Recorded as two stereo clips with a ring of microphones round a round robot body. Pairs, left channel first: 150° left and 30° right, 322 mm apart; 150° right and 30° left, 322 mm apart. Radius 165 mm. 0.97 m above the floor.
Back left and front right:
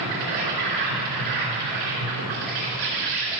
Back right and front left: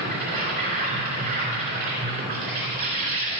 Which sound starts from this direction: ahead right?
An insect, at 0.0 s.